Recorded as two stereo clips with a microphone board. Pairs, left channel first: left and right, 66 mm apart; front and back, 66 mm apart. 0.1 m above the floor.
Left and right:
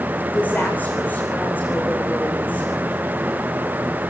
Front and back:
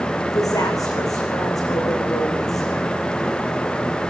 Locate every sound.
0.3 s a woman speaking: 25° left, 9 m